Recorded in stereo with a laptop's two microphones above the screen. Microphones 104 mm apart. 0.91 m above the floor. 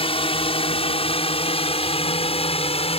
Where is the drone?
60° left (ahead or behind); by 3.0 s 70° left (ahead or behind).